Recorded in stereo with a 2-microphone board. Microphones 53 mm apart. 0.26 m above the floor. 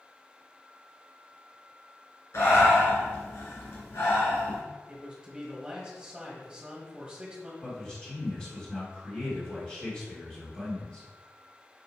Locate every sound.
2.3 s breathing: 65° left (ahead or behind), 1.8 m
4.9 s a man speaking: 15° right (ahead or behind), 1.1 m
7.6 s a man speaking: 15° left (ahead or behind), 1.9 m